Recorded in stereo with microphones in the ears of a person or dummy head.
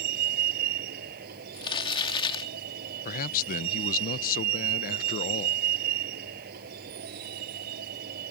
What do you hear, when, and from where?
0.0 s a vehicle: 50° right (ahead or behind)
1.5 s crumpling: 25° left (ahead or behind)
3.0 s a man speaking: 45° left (ahead or behind)